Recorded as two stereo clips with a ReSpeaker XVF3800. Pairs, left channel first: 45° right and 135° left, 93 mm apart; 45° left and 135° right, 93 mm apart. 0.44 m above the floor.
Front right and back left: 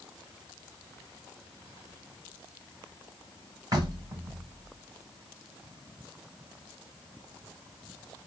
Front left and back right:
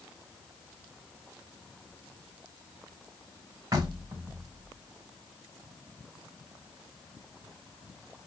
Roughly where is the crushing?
No crushing in this recording.